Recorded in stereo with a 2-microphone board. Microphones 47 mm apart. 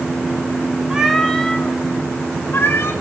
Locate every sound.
0.9 s a cat meowing: 15° right (ahead or behind), 0.9 m; by 2.9 s 60° left (ahead or behind), 1.5 m